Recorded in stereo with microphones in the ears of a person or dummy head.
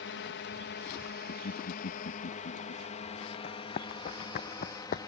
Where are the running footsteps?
40° left (ahead or behind).